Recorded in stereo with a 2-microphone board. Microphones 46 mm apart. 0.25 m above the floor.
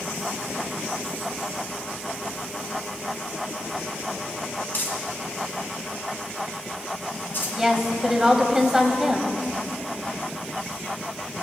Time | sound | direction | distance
4.7 | crumpling | 45° left (ahead or behind) | 2 m
7.6 | a woman speaking | 10° right (ahead or behind) | 1.1 m